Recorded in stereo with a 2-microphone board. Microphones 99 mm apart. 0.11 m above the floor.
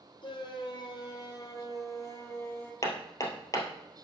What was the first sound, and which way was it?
A shout, 55° left (ahead or behind).